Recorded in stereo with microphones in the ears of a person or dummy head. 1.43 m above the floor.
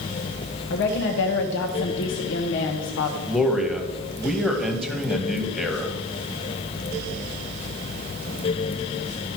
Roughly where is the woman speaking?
Left.